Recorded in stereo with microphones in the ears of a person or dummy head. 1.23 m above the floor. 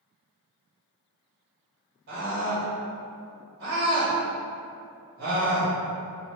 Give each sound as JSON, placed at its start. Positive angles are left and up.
{"t": 2.1, "sound": "a scream", "side_deg": -50, "distance_m": 1.6}